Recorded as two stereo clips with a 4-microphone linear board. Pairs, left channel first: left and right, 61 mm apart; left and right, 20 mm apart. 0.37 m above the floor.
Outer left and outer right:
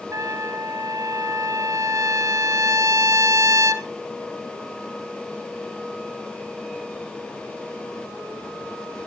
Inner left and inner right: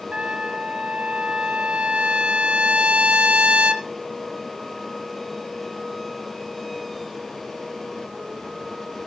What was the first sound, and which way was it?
A trumpet, 65° right (ahead or behind).